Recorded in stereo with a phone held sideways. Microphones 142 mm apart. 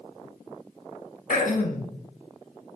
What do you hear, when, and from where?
1.3 s throat clearing: 70° left (ahead or behind), 0.6 m